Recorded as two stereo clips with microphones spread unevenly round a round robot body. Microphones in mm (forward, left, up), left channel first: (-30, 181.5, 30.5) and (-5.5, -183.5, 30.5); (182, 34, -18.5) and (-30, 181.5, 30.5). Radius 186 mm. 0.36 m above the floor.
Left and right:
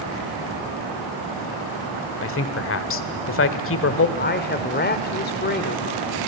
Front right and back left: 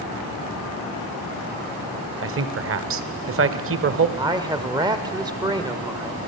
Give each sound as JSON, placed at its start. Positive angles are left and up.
{"t": 2.2, "sound": "a man speaking", "azimuth_deg": 130, "distance_m": 1.4}
{"t": 4.2, "sound": "a man speaking", "azimuth_deg": 65, "distance_m": 1.6}